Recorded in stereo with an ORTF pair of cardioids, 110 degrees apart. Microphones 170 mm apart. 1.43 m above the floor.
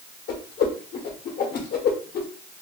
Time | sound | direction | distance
0.3 | a whoosh | 65° left | 1.1 m